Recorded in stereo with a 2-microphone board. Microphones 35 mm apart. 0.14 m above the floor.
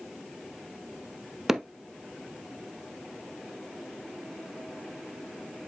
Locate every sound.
1.5 s hammering: 10° right (ahead or behind), 0.8 m